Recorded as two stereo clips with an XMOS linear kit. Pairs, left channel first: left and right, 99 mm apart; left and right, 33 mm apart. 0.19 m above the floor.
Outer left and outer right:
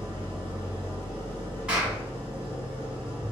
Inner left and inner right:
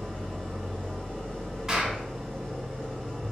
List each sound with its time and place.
0.0 s an engine running: 20° left (ahead or behind), 1.2 m
1.7 s a clap: 10° right (ahead or behind), 1.2 m